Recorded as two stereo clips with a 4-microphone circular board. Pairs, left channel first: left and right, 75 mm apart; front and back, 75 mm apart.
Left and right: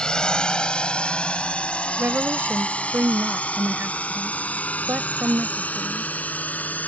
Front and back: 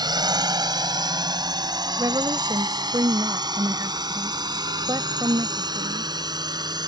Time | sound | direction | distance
0.0 | a drone | 170° left | ?
2.0 | a woman speaking | 150° right | ?